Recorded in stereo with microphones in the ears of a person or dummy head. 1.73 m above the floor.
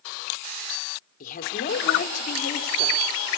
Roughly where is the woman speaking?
Left.